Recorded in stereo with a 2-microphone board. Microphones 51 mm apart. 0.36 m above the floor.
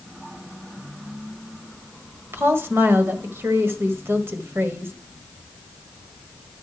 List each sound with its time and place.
2.3 s a woman speaking: 50° right (ahead or behind), 1.4 m